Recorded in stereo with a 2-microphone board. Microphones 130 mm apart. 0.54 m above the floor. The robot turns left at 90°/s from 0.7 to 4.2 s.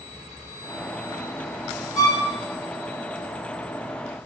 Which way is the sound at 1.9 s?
70° left (ahead or behind).